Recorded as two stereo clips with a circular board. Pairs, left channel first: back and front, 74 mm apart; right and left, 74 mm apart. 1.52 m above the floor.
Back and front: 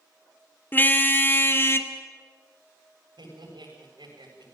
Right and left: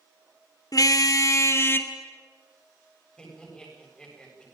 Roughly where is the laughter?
Ahead.